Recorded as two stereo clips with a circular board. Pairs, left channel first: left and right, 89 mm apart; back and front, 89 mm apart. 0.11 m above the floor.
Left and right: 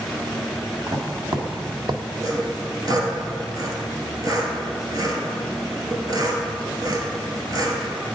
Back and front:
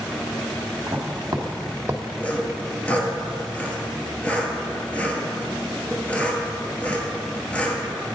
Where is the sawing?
110° right, 0.9 m.